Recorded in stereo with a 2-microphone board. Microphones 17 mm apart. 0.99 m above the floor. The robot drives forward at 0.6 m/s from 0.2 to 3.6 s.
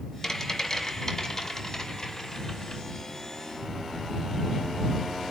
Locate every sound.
0.2 s a rattle: 30° left (ahead or behind), 6 m; by 2.8 s 35° left (ahead or behind), 4.5 m